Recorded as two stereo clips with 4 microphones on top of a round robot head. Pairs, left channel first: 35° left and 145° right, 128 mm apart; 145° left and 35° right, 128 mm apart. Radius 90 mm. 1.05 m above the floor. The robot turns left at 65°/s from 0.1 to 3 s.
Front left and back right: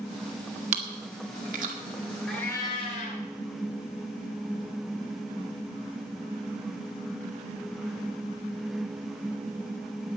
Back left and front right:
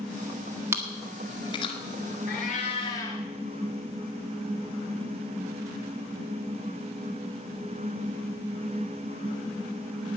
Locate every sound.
0.7 s chewing: 110° right, 1.7 m; by 1.7 s 175° right, 1.7 m
2.3 s a cat meowing: 125° left, 2.5 m; by 3.2 s 75° left, 2.5 m